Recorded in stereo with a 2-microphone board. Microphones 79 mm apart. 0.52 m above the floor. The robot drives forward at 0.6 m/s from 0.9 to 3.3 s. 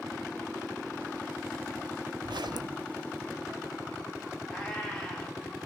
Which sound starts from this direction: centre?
A cat meowing, at 4.5 s.